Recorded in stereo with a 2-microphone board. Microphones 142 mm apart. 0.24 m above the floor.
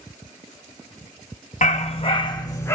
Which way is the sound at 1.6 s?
60° left (ahead or behind).